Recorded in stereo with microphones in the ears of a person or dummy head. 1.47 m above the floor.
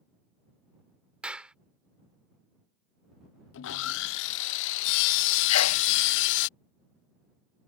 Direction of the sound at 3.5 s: 70° left (ahead or behind).